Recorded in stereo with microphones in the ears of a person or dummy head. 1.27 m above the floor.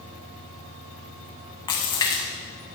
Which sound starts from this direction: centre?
A splash, at 1.7 s.